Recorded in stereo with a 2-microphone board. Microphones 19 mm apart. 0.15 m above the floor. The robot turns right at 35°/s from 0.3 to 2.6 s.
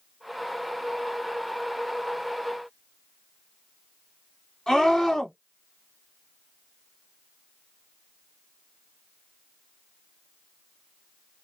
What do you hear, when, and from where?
4.7 s a scream: 40° left (ahead or behind), 2 m